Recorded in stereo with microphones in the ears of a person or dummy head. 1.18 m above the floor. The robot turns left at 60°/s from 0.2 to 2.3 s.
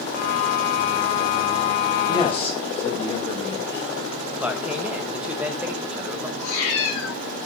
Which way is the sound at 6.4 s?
40° left (ahead or behind).